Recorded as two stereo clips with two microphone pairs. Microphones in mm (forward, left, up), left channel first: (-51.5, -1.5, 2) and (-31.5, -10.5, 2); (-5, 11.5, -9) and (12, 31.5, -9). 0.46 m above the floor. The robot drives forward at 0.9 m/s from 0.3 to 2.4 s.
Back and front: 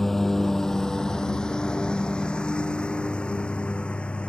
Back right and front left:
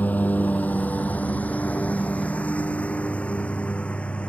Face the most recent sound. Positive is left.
turn(degrees=-175)